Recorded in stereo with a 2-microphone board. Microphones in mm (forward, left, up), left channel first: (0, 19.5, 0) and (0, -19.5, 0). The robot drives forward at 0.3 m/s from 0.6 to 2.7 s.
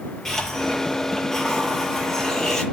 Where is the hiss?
10° left (ahead or behind), 8 m.